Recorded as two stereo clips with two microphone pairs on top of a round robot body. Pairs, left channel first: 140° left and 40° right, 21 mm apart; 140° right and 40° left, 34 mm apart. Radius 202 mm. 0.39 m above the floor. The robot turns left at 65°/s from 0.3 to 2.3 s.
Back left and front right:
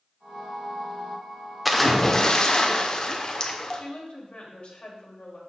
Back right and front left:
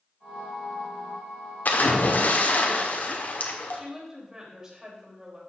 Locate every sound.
1.6 s a splash: 125° right, 1.5 m; by 3.8 s 165° right, 1.5 m
3.7 s a woman speaking: 110° left, 3 m